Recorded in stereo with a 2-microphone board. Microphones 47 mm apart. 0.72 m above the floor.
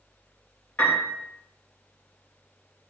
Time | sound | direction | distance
0.8 | a piano | 40° left (ahead or behind) | 3 m